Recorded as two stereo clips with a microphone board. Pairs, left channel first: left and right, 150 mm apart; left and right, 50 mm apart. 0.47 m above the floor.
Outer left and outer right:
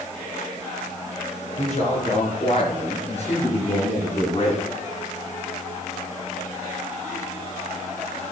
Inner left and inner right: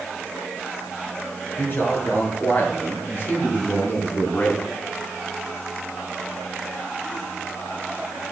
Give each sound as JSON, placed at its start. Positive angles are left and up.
{"t": 1.6, "sound": "a man speaking", "side_deg": 50, "distance_m": 6.0}